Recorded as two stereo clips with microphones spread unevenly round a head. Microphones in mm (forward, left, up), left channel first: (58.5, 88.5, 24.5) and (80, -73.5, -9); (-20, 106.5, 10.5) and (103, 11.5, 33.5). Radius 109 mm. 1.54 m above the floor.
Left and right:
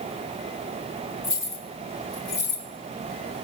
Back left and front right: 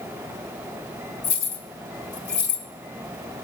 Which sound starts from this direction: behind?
Keys jangling, at 1.2 s.